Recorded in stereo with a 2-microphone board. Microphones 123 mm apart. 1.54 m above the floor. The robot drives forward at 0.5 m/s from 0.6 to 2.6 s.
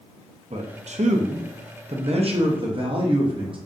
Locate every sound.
0.5 s a man speaking: 60° right (ahead or behind), 0.8 m; by 3.6 s 45° right (ahead or behind), 0.9 m